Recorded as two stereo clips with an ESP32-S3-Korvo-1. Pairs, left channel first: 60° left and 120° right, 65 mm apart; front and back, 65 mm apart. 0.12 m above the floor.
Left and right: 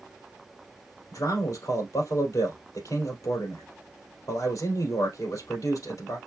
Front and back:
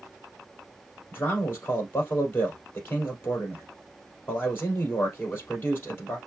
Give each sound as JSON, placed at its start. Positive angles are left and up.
{"t": 1.1, "sound": "a man speaking", "azimuth_deg": 55, "distance_m": 3.0}